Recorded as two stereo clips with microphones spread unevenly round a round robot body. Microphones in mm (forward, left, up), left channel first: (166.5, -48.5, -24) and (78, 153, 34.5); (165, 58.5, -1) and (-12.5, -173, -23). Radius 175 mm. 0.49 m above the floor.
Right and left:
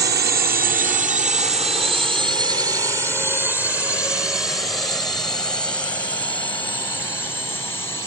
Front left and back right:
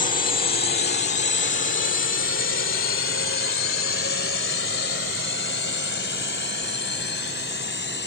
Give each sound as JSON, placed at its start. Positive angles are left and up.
{"t": 0.0, "sound": "a drone", "azimuth_deg": 100}